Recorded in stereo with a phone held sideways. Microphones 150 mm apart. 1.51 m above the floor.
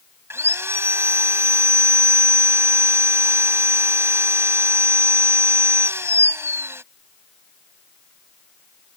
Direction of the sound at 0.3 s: 15° right (ahead or behind).